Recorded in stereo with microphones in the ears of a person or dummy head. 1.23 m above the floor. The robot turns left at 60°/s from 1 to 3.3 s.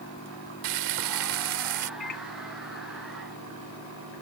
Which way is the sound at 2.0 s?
40° left (ahead or behind).